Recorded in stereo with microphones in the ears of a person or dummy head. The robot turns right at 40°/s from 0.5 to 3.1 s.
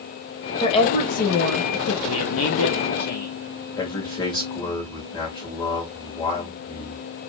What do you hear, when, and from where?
0.6 s a woman speaking: 25° left, 1.7 m; by 1.9 s 80° left, 1.7 m
2.0 s a man speaking: 85° left, 1.2 m; by 3.4 s 130° left, 1.2 m
3.8 s a man speaking: 25° left (ahead or behind), 1.9 m